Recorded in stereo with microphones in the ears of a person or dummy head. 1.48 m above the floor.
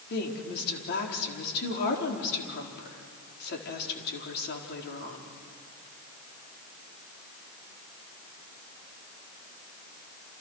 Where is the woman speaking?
60° left (ahead or behind), 4.5 m.